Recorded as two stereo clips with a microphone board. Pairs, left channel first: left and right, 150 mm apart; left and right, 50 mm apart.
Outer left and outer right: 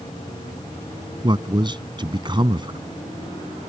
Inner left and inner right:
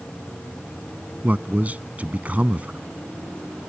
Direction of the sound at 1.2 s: 35° right (ahead or behind).